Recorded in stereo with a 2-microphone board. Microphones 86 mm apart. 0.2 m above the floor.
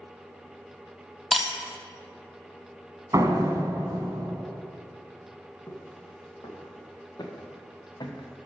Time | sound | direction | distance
1.3 | breaking glass | centre (ahead or behind) | 1.0 m
3.1 | a door slam | 40° right (ahead or behind) | 1.2 m
5.7 | footsteps | 35° left (ahead or behind) | 3 m